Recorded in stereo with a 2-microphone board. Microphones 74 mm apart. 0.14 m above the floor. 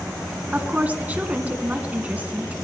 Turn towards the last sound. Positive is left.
turn(degrees=-20)  # may be behind; listen again after turning